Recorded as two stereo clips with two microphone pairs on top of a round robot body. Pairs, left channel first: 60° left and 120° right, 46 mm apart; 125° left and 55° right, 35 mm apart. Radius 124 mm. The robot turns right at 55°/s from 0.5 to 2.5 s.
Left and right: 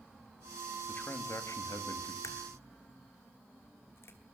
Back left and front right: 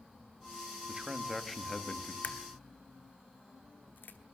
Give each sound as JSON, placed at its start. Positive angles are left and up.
{"t": 0.9, "sound": "a man speaking", "azimuth_deg": 10, "distance_m": 2.0}
{"t": 2.2, "sound": "a crack", "azimuth_deg": 85, "distance_m": 1.1}